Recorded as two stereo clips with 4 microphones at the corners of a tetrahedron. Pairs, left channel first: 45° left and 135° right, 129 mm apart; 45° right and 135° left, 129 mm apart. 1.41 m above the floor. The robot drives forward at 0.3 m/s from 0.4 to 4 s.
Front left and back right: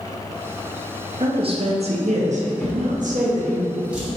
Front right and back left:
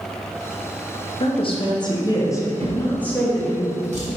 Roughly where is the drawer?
Behind left.